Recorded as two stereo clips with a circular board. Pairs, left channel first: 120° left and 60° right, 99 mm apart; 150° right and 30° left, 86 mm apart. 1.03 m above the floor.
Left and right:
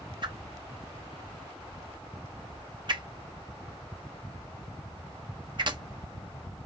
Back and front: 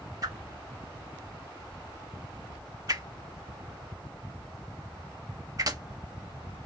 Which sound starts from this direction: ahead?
A whoosh, at 0.2 s.